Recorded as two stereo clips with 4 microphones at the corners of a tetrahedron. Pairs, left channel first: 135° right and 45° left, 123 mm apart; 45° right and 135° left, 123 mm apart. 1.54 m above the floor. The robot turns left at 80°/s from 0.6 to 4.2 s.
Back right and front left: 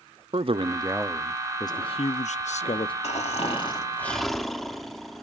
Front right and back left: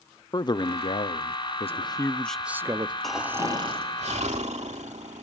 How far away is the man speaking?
About 0.5 m.